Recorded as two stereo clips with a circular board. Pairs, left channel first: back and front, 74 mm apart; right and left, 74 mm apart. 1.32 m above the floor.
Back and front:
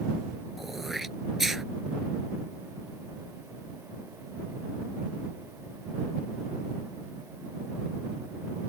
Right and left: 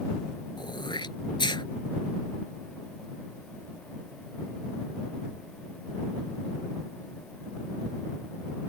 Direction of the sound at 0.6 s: 85° right.